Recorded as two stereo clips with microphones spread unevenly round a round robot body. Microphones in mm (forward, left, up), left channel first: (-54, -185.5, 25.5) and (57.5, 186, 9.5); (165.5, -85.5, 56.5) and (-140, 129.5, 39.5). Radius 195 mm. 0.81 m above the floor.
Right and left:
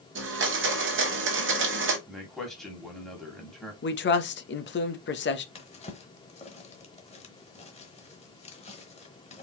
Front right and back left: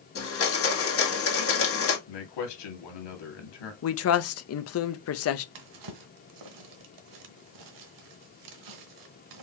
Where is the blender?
15° left, 1.7 m.